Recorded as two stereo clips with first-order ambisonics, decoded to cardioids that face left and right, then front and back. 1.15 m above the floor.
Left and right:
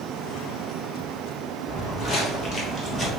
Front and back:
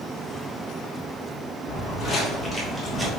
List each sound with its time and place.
1.7 s footsteps: 40° left, 1.6 m; by 3.1 s 165° left, 1.1 m